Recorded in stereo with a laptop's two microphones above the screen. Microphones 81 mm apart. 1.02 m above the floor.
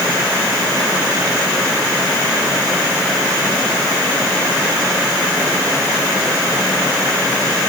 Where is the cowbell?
No cowbell in this recording.